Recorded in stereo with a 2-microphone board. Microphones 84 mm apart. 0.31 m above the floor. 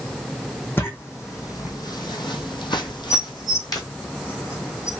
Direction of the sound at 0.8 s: 30° left (ahead or behind).